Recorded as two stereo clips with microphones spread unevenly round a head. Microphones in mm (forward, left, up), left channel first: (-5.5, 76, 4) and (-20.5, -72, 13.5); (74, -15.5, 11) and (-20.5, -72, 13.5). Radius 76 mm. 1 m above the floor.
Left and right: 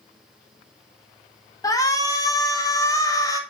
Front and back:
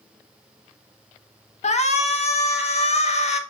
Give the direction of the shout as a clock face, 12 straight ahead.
11 o'clock.